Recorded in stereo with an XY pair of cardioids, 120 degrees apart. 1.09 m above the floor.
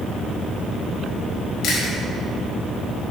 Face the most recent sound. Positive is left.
turn(degrees=60)